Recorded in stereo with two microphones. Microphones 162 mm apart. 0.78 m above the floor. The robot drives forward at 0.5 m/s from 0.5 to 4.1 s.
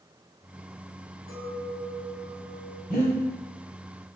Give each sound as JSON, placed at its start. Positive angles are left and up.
{"t": 1.3, "sound": "a clink", "side_deg": 75, "distance_m": 3.5}
{"t": 2.9, "sound": "breathing", "side_deg": 70, "distance_m": 3.0}